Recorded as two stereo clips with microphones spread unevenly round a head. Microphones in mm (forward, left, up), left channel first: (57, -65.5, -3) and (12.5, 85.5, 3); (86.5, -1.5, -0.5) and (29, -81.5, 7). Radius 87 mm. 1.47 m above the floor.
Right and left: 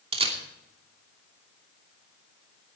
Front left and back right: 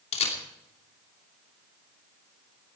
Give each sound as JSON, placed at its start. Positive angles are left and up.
{"t": 0.1, "sound": "a camera shutter", "azimuth_deg": 50, "distance_m": 2.5}